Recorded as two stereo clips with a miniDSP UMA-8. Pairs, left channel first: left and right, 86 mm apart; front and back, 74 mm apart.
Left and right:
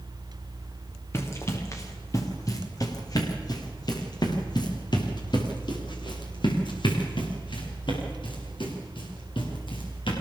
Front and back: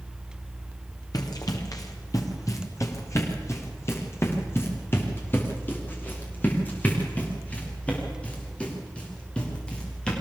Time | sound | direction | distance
1.1 | running footsteps | 30° left | 4 m